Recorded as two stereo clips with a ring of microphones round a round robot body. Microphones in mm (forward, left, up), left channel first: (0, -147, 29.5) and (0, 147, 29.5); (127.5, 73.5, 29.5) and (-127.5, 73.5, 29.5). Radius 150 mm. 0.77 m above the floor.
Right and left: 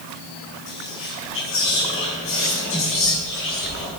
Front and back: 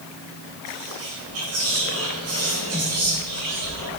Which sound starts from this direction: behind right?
Whispering, at 0.7 s.